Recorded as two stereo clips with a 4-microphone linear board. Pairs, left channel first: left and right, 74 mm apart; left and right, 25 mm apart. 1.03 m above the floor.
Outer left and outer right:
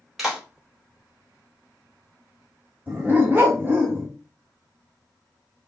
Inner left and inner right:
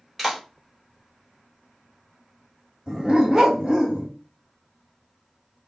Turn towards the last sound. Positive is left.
turn(degrees=-30)  # may be behind; listen again after turning